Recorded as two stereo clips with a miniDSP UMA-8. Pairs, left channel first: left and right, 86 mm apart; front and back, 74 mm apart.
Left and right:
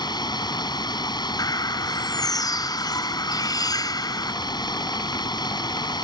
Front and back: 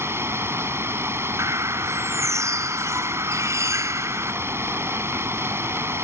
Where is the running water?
125° left.